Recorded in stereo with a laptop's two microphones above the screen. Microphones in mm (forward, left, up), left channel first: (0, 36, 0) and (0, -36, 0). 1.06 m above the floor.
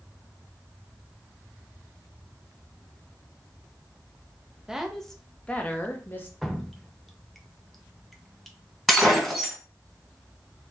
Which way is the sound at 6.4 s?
5° left (ahead or behind).